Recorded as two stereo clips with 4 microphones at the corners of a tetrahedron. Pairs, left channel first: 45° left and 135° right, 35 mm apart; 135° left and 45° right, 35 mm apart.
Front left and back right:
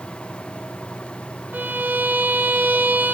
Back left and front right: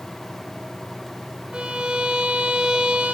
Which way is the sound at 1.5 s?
105° right.